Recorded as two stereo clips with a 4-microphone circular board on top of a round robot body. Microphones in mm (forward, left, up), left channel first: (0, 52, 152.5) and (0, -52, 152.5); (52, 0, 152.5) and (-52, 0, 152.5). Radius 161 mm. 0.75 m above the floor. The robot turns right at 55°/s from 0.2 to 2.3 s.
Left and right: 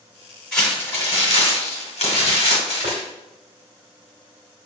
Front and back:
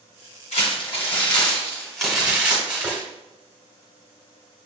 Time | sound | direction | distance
0.5 | crumpling | 5° left | 1.3 m
2.8 | tapping | 90° right | 0.6 m